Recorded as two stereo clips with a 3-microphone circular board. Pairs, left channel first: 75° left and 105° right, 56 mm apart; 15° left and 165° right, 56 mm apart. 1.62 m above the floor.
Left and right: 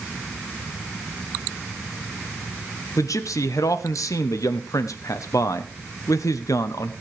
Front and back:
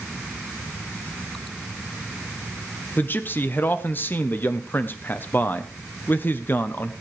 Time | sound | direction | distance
3.0 | a man speaking | 70° left | 1.0 m